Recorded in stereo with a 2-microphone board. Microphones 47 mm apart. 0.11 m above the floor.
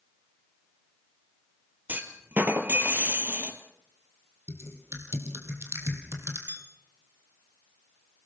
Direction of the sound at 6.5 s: 45° right (ahead or behind).